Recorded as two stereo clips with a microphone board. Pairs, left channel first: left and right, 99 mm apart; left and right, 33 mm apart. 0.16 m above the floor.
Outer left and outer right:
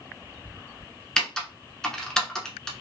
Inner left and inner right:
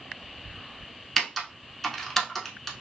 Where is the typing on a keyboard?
10° left (ahead or behind), 0.7 m.